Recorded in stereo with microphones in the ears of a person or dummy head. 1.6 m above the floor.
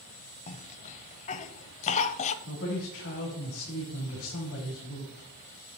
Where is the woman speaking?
70° left (ahead or behind), 3 m.